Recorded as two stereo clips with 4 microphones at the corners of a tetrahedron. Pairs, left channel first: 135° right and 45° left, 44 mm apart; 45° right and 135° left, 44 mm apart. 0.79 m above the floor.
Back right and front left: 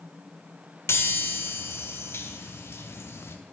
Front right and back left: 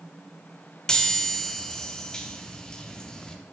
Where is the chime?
120° right, 0.7 m.